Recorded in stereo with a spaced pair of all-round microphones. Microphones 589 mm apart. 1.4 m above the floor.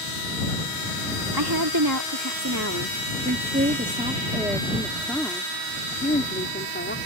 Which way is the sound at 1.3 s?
40° right (ahead or behind).